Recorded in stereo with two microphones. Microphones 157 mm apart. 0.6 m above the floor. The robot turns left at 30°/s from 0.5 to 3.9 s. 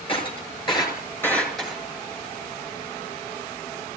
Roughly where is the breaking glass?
Left.